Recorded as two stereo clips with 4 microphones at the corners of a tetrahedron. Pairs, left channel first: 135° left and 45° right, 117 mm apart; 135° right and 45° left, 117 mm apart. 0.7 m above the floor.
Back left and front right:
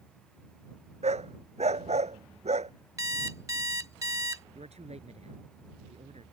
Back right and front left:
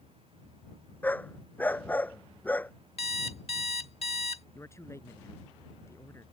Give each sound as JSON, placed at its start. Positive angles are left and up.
{"t": 1.0, "sound": "a dog barking", "azimuth_deg": -60}
{"t": 3.0, "sound": "an alarm clock", "azimuth_deg": -105}
{"t": 4.5, "sound": "a man speaking", "azimuth_deg": -65}